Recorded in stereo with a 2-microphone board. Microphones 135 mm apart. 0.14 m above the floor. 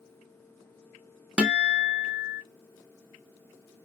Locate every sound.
1.4 s a guitar: 5° right (ahead or behind), 0.6 m